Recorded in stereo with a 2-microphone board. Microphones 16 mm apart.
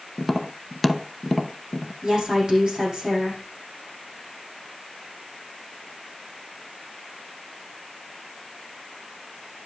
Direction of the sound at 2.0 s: 60° right (ahead or behind).